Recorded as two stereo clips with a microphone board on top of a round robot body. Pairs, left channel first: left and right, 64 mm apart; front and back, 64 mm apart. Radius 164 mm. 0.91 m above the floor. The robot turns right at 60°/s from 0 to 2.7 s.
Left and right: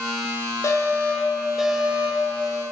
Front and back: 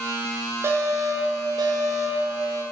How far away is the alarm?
About 7 m.